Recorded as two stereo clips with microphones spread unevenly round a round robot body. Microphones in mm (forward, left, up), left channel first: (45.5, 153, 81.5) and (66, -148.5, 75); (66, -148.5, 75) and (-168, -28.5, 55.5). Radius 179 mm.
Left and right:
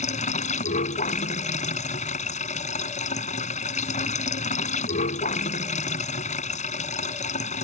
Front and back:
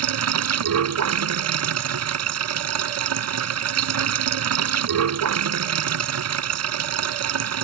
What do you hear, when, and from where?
0.0 s running water: 160° left